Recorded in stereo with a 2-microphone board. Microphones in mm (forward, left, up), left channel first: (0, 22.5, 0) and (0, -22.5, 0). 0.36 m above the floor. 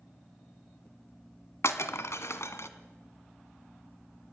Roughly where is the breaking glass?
Left.